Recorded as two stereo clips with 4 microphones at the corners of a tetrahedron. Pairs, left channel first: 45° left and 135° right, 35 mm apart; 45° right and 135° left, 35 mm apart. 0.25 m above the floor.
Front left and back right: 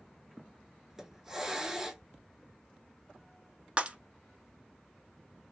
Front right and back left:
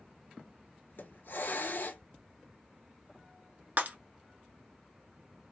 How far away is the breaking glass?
About 0.7 m.